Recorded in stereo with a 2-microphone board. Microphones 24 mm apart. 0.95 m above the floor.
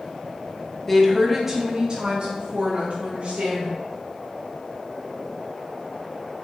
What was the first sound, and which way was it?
A woman speaking, 15° left (ahead or behind).